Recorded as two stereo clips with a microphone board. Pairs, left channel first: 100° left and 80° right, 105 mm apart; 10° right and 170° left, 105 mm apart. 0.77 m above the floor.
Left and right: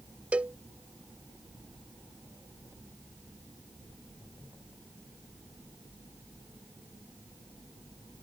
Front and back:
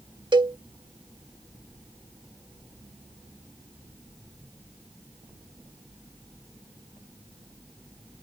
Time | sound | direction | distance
0.3 | a cowbell | 155° right | ?